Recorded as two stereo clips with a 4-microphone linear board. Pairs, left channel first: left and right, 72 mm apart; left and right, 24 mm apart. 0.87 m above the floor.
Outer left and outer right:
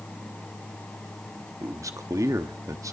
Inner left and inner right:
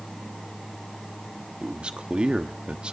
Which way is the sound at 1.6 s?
50° right (ahead or behind).